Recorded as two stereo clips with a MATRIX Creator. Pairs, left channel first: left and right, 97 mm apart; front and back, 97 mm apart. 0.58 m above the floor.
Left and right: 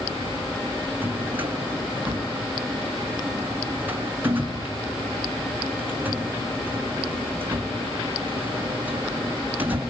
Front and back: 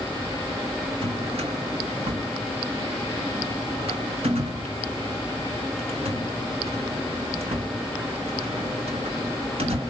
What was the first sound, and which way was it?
A drawer, 160° right.